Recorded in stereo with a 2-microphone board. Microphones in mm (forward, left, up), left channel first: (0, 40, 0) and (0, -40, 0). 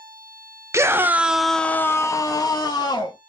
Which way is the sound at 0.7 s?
35° right (ahead or behind).